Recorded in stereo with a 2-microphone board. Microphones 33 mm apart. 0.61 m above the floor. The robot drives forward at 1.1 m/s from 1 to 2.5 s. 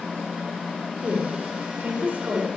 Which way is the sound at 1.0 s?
40° right (ahead or behind).